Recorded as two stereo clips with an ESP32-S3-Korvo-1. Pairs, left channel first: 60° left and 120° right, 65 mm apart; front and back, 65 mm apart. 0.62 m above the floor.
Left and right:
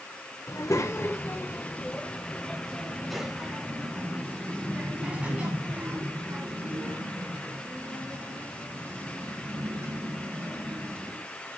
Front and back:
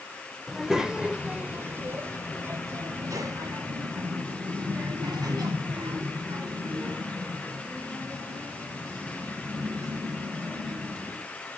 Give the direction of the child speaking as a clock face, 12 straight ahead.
9 o'clock.